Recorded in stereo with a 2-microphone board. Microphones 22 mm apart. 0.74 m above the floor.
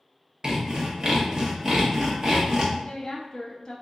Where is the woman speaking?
35° left (ahead or behind), 0.8 m.